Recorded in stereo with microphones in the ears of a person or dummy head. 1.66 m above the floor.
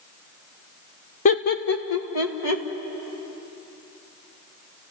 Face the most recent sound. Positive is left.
turn(degrees=80)